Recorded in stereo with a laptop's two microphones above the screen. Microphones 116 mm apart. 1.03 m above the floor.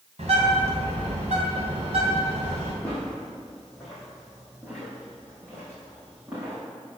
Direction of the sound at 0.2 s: 65° right (ahead or behind).